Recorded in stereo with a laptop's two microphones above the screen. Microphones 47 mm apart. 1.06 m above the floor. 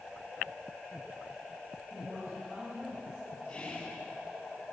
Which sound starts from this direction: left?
Whispering, at 3.5 s.